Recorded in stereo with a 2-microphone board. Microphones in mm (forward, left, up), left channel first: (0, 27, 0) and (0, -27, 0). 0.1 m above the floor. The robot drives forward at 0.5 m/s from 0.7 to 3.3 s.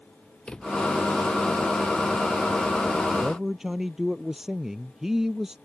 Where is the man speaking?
10° right (ahead or behind).